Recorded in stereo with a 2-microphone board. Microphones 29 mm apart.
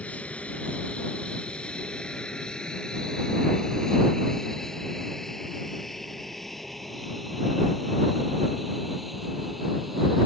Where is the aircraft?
50° left (ahead or behind); by 10.3 s 5° right (ahead or behind).